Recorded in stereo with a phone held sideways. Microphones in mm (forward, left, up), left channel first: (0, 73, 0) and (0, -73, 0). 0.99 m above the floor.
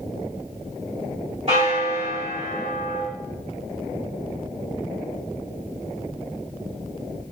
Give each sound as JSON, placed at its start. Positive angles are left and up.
{"t": 1.5, "sound": "a bell", "side_deg": -45, "distance_m": 1.6}